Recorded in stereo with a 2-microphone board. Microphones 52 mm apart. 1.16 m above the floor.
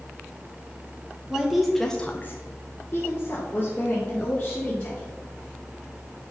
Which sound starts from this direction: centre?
A woman speaking, at 1.3 s.